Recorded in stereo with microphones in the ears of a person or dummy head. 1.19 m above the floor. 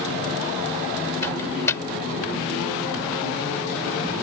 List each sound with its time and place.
1.2 s a microwave: 15° left (ahead or behind)